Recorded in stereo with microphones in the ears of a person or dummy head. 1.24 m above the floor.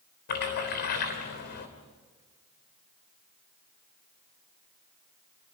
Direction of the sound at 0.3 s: 50° left (ahead or behind).